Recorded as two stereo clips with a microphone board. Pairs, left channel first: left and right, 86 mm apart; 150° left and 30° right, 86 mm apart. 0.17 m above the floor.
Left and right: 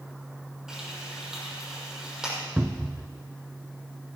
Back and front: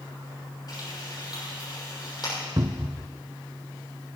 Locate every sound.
0.7 s frying: 175° right, 6.5 m
2.6 s a cupboard door: 10° right, 0.8 m